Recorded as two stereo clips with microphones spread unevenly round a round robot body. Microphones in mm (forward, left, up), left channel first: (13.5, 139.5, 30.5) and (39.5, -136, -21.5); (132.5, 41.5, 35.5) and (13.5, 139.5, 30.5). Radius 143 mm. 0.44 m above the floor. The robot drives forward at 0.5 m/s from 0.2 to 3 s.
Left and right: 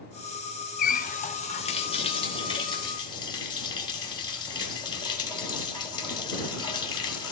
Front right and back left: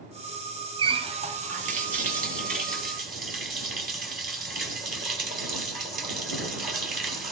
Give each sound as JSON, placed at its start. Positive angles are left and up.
{"t": 0.8, "sound": "a running tap", "azimuth_deg": 150, "distance_m": 0.5}